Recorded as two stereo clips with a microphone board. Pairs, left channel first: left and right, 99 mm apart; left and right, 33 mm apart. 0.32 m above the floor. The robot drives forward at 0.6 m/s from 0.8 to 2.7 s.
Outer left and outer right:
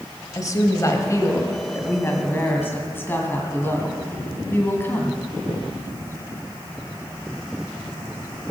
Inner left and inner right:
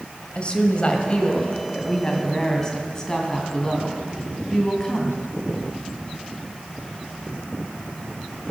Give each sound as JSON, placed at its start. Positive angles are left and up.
{"t": 0.3, "sound": "a woman speaking", "side_deg": 35, "distance_m": 1.4}